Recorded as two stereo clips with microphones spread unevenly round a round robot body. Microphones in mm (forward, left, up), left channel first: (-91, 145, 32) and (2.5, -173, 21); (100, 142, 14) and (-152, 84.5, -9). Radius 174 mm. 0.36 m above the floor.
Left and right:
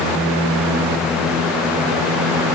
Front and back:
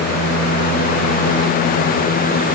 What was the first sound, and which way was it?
Only background noise.